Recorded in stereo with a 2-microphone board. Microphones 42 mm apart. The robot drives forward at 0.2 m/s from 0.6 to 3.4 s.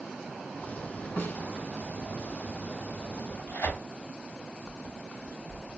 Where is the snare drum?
65° left (ahead or behind), 2.5 m.